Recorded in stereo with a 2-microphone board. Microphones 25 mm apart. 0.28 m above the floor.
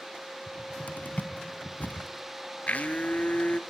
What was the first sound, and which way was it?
A cupboard door, 75° left (ahead or behind).